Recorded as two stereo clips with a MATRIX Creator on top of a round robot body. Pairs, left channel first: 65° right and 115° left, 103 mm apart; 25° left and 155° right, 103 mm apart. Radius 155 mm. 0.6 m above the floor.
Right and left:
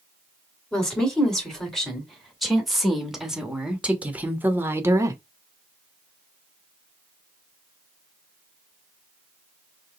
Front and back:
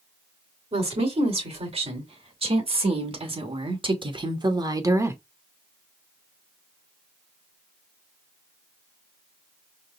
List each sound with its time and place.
0.7 s a woman speaking: 150° right, 2.5 m; by 5.2 s 150° left, 1.0 m